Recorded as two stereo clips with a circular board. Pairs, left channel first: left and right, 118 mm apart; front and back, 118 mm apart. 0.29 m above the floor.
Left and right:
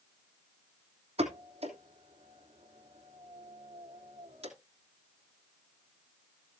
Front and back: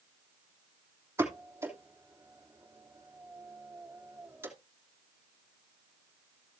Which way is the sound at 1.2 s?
115° right.